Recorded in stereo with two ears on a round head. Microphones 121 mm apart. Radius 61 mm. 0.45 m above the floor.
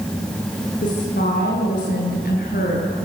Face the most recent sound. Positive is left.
turn(degrees=65)  # may be behind; listen again after turning